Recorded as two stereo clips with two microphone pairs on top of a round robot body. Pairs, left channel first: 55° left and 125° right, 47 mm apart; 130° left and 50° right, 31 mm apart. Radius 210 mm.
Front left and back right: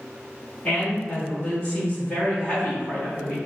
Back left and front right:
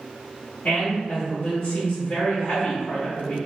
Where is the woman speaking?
120° left, 1.9 m.